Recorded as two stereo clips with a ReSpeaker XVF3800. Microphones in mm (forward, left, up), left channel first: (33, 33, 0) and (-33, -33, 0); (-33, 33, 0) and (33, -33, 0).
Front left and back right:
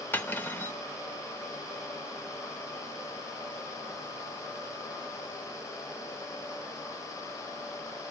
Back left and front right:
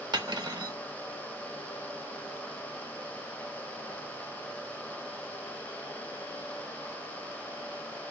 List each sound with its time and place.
0.1 s cutlery clinking: 20° right, 0.7 m